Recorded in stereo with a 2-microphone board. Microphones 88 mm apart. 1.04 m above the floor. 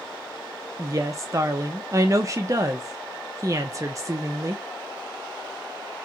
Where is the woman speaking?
35° right (ahead or behind), 0.6 m.